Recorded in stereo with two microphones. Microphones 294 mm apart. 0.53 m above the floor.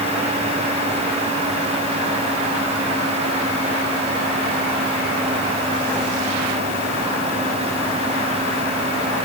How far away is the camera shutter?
I don't hear a camera shutter.